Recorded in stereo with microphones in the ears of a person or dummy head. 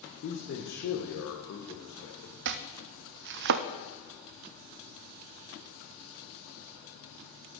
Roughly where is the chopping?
Right.